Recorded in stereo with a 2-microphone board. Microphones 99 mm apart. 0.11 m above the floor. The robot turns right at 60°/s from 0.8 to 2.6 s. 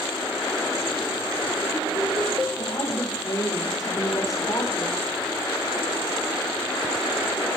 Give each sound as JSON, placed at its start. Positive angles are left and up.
{"t": 2.6, "sound": "a woman speaking", "side_deg": 35, "distance_m": 7.5}